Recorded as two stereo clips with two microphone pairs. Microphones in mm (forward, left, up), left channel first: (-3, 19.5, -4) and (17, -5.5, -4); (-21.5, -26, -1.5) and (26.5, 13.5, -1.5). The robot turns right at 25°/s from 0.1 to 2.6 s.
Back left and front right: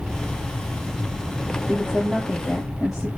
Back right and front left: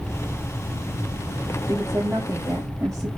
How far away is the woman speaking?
About 5.5 m.